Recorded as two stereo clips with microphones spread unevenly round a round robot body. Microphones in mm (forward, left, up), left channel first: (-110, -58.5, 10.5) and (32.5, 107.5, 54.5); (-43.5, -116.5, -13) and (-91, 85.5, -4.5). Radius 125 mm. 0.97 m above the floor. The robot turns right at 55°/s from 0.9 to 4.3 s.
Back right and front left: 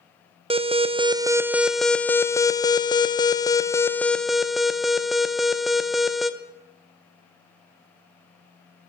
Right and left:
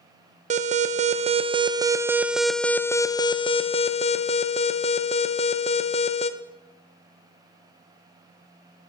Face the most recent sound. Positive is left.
turn(degrees=-60)